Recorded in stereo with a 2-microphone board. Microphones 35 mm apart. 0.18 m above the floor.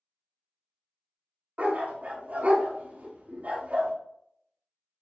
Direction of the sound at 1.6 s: 55° right (ahead or behind).